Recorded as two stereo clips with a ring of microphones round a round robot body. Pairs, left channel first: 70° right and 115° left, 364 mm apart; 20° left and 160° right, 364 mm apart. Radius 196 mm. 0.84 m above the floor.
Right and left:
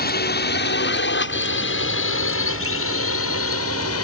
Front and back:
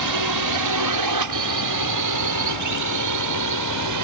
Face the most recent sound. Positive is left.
turn(degrees=-120)